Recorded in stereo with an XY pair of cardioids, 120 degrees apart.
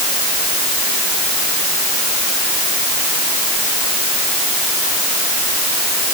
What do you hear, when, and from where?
Only background noise.